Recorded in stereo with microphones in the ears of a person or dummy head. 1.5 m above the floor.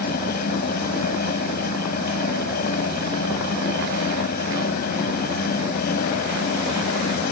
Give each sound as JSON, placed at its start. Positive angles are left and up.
{"t": 0.0, "sound": "a fan", "side_deg": 50}